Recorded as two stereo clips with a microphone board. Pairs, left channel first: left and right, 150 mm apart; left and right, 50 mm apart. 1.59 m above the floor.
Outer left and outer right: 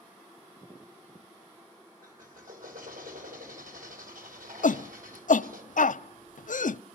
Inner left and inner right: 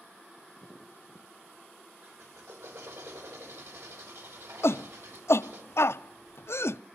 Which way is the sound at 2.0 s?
75° right (ahead or behind).